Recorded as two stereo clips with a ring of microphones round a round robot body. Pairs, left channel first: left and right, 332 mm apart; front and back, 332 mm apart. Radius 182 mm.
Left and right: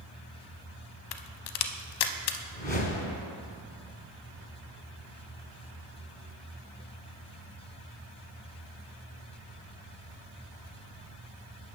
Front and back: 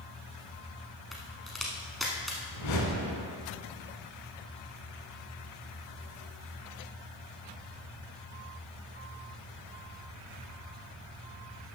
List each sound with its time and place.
1.1 s a crack: 90° left, 0.6 m
2.5 s a whoosh: 25° left, 2 m